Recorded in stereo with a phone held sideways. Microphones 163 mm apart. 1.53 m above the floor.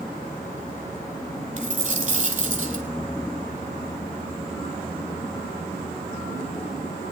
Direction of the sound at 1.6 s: 45° right (ahead or behind).